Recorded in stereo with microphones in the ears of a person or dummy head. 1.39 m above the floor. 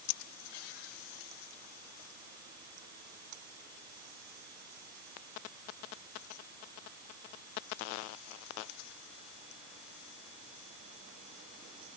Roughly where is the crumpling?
I don't hear crumpling.